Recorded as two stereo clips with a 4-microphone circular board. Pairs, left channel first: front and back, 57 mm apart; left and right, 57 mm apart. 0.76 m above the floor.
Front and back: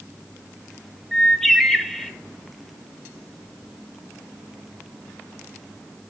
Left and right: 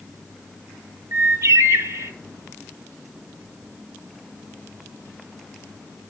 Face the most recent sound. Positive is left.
turn(degrees=-85)